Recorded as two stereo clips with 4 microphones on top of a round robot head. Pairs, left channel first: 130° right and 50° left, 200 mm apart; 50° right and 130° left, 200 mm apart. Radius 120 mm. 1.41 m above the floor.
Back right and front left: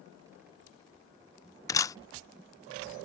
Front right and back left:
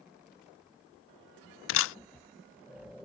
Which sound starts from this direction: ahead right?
A camera shutter, at 1.7 s.